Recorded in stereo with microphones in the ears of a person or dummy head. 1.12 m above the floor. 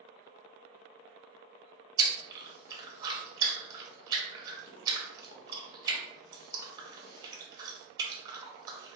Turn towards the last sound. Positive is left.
turn(degrees=-25)  # may be behind; listen again after turning